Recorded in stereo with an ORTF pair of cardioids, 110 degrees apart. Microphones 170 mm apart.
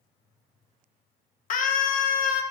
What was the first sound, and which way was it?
A scream, 55° left.